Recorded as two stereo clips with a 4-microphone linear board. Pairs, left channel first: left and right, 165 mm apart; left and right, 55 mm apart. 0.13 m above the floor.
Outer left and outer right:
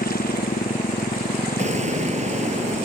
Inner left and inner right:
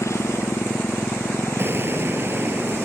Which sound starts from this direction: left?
A motorcycle, at 0.0 s.